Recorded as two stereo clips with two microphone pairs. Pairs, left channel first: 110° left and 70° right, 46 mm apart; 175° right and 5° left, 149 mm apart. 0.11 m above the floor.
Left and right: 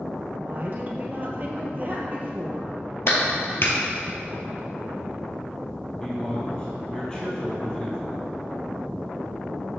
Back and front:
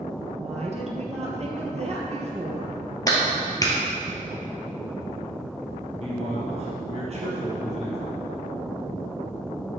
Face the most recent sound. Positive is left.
turn(degrees=35)